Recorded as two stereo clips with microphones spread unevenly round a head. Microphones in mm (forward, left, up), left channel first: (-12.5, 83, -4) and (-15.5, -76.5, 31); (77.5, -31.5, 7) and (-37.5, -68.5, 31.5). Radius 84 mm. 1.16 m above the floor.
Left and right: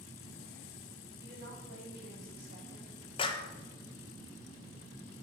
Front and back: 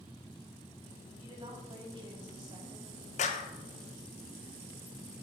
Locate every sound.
1.2 s a woman speaking: 120° right, 5 m
3.2 s a clap: 35° left, 0.9 m